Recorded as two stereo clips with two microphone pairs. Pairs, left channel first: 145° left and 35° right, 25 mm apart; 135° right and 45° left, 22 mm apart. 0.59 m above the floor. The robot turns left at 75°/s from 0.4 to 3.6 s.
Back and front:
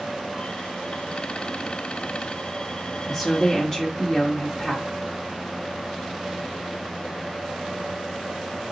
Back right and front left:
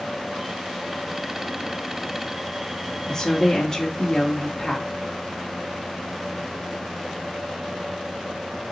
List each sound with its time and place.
3.0 s a woman speaking: 100° right, 1.1 m; by 4.9 s 140° right, 1.1 m